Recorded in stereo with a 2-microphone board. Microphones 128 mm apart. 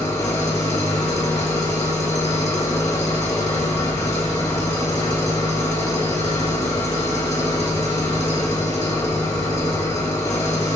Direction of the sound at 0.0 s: 30° left (ahead or behind).